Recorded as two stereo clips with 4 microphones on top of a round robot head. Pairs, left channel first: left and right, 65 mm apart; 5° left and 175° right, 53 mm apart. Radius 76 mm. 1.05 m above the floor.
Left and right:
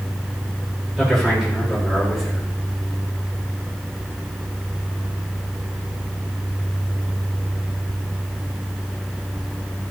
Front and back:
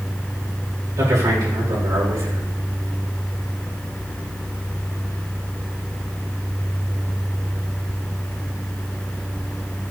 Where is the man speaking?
175° right, 4.5 m.